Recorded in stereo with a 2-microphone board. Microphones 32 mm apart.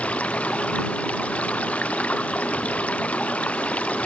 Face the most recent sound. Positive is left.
turn(degrees=45)  # may be behind; listen again after turning